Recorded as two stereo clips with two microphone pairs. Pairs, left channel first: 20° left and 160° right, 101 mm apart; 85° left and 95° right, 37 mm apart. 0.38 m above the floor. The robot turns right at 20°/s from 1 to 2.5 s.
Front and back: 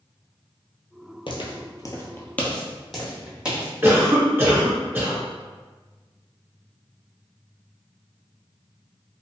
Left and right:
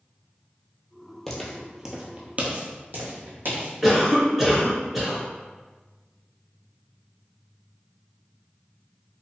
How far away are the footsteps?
About 0.7 m.